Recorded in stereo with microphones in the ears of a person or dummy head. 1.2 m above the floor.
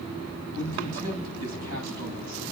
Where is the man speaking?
85° right, 9.5 m.